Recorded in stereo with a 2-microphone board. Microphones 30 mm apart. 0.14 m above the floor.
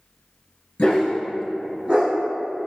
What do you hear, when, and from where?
0.8 s a dog barking: 45° left (ahead or behind), 0.8 m; by 2.1 s 50° right (ahead or behind), 0.8 m